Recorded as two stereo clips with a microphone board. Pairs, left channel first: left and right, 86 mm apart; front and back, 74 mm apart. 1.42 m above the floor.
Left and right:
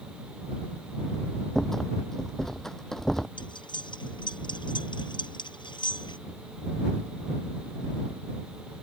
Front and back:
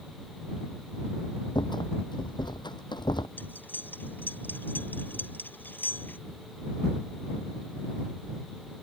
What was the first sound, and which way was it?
A rattle, 5° left.